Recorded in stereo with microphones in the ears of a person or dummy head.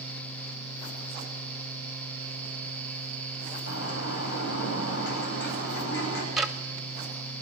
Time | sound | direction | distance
3.7 | a bird | 65° left (ahead or behind) | 9.5 m
6.4 | ticking | 5° left (ahead or behind) | 1.4 m